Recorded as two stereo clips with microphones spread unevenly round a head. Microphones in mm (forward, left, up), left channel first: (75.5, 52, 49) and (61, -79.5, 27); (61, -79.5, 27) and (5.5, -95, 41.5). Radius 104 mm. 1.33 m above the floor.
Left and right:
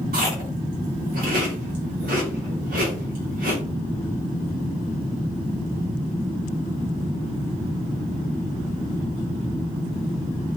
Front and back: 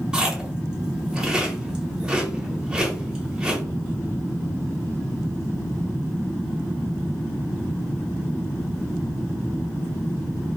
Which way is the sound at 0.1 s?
105° right.